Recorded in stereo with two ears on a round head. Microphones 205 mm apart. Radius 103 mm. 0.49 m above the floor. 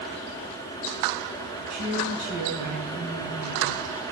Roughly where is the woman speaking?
Right.